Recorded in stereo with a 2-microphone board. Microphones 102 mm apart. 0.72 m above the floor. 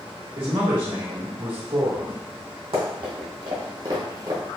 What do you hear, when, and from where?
0.4 s a man speaking: 60° right (ahead or behind), 1.5 m
2.7 s running footsteps: 65° right (ahead or behind), 1.6 m; by 4.6 s 30° right (ahead or behind), 0.7 m